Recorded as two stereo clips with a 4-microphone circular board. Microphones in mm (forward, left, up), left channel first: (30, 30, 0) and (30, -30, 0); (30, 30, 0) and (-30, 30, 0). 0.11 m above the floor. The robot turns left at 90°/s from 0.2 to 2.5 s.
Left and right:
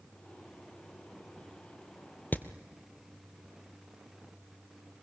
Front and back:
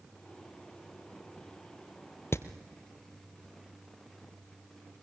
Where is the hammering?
35° left, 1.2 m; by 2.5 s 25° left, 1.2 m.